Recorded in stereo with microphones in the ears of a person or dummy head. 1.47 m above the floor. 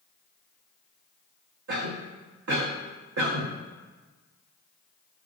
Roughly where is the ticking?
No ticking in this recording.